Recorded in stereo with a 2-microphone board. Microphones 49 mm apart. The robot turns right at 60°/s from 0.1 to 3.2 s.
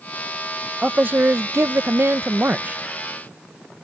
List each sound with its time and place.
0.8 s a man speaking: 145° right; by 2.8 s 30° right